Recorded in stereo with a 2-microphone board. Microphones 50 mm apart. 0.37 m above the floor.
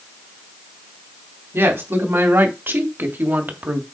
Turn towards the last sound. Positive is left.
turn(degrees=-40)  # may be behind; listen again after turning